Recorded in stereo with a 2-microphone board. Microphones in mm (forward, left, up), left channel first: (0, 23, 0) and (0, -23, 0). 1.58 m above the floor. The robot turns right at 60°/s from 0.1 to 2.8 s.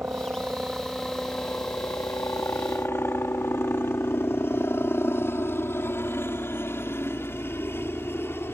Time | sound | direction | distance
0.0 | a helicopter | 45° right (ahead or behind) | ?